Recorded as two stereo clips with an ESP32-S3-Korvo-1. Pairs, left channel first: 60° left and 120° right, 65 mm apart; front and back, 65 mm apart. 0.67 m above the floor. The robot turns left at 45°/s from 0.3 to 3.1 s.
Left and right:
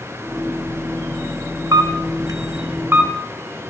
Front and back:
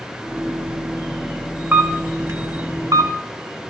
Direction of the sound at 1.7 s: 115° right.